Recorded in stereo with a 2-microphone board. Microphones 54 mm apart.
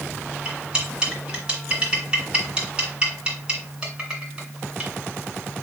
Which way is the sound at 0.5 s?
15° right (ahead or behind).